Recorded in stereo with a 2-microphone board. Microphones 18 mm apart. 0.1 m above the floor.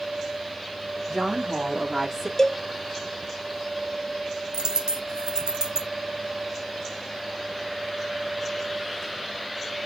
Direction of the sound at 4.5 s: 50° right (ahead or behind).